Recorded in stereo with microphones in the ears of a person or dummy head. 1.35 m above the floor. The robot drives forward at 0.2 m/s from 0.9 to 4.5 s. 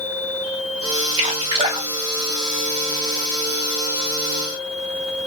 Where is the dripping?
30° right (ahead or behind), 1.3 m; by 3.2 s 35° right (ahead or behind), 1.1 m.